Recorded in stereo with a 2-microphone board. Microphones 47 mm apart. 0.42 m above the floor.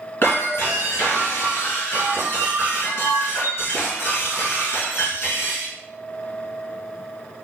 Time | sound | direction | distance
0.2 | breaking glass | 50° left (ahead or behind) | 1.4 m